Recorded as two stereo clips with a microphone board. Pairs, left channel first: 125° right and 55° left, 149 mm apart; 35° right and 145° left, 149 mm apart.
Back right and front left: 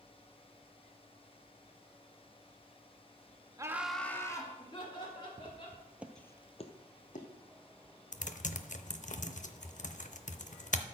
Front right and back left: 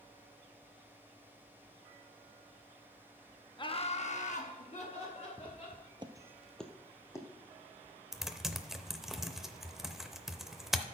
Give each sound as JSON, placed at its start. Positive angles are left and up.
{"t": 3.6, "sound": "laughter", "azimuth_deg": 5, "distance_m": 0.8}
{"t": 5.4, "sound": "footsteps", "azimuth_deg": 100, "distance_m": 1.5}
{"t": 8.1, "sound": "typing on a keyboard", "azimuth_deg": -125, "distance_m": 0.6}